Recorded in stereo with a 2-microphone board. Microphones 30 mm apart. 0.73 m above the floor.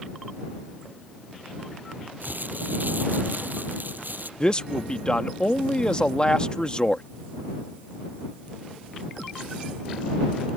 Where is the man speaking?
30° left (ahead or behind).